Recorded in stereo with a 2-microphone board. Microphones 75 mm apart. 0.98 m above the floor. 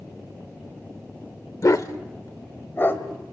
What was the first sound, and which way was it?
A dog barking, 50° left (ahead or behind).